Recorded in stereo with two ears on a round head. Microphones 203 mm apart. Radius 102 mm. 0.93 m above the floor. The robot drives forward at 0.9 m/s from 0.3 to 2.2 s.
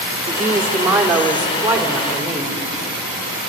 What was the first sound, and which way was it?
A woman speaking, 10° right (ahead or behind).